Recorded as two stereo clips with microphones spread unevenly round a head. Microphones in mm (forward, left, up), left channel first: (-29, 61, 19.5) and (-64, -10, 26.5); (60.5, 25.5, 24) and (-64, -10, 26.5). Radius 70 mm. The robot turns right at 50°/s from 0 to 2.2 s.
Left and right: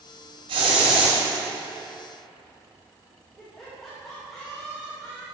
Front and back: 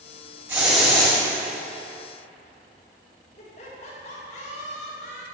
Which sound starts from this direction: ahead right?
Laughter, at 3.4 s.